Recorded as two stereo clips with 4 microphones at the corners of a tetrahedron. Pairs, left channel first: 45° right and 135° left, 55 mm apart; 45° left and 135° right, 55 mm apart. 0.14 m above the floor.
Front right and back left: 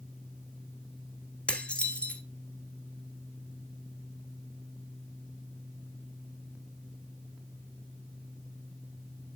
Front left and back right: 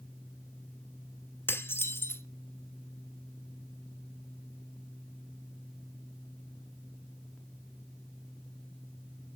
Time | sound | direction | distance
1.5 | dishes clattering | 15° left | 1.4 m